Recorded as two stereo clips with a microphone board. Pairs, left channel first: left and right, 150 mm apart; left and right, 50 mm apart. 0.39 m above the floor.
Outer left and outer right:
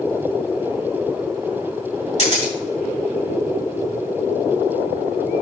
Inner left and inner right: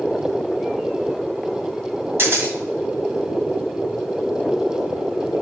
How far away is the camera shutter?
About 2.5 m.